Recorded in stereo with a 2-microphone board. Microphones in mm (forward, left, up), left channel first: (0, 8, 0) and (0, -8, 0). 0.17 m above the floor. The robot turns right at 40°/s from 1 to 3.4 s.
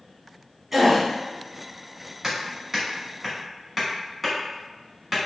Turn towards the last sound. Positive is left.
turn(degrees=-5)  # may be behind; listen again after turning